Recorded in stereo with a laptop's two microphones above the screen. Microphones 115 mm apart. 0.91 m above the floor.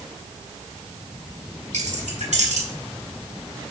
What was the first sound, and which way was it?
Keys jangling, 90° right.